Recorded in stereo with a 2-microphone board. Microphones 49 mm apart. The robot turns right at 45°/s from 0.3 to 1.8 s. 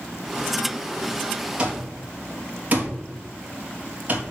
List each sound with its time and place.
1.6 s an alarm clock: 20° right (ahead or behind), 2.5 m; by 4.2 s 30° right (ahead or behind), 2.5 m